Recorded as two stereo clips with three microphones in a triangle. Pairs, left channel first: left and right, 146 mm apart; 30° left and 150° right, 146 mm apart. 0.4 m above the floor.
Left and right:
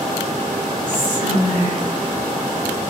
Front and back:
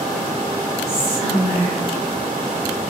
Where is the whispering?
135° right, 1.1 m.